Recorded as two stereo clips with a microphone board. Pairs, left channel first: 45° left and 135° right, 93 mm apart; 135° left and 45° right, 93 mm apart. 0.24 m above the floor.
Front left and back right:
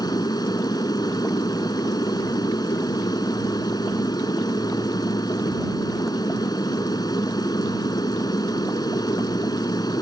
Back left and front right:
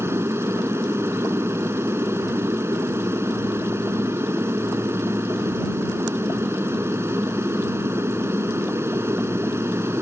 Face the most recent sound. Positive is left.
turn(degrees=10)